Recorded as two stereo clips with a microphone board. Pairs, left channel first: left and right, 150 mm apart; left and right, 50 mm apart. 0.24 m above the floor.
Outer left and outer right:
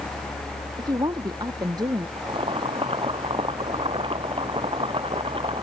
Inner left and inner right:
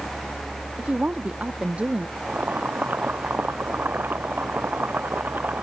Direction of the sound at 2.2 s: 35° right (ahead or behind).